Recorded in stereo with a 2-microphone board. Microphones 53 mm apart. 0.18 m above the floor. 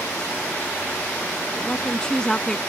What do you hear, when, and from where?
1.6 s a woman speaking: 15° left (ahead or behind)